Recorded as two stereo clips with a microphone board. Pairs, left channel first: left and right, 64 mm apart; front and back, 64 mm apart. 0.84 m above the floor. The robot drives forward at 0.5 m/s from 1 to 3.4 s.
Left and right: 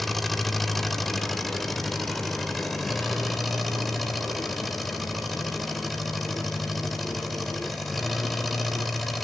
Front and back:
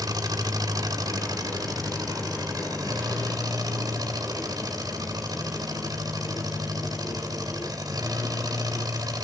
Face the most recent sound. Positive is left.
turn(degrees=180)